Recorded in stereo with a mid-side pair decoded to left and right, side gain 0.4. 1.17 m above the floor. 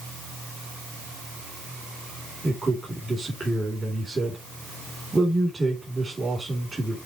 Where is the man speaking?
25° right, 3 m.